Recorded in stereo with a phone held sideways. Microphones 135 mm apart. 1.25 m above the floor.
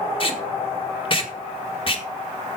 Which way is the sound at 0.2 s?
40° left (ahead or behind).